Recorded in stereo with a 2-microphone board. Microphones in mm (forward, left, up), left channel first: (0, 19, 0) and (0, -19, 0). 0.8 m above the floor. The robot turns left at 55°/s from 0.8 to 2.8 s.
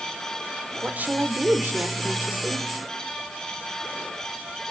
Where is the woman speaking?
45° right, 1.9 m; by 2.7 s 150° right, 1.9 m.